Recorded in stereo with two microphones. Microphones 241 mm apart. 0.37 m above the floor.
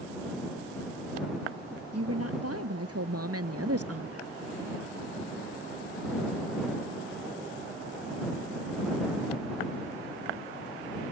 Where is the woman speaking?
80° right; by 4.3 s 75° right (ahead or behind).